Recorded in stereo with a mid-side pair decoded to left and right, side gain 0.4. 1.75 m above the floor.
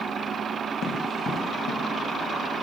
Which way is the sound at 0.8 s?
70° left.